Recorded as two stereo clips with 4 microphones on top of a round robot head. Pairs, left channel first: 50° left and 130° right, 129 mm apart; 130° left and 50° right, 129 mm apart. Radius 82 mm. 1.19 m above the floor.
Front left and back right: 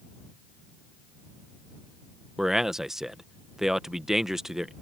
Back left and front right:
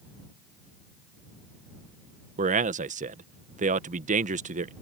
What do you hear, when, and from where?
2.4 s a man speaking: 45° right